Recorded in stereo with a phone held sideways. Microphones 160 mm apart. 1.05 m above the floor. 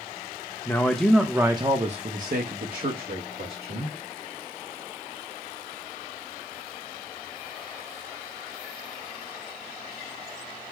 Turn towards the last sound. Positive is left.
turn(degrees=-85)